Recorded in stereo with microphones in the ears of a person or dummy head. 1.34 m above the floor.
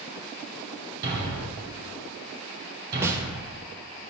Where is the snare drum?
15° right (ahead or behind), 0.6 m.